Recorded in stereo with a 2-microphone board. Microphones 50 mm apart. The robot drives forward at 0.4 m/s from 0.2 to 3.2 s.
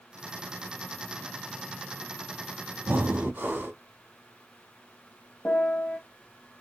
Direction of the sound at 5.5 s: 40° left (ahead or behind).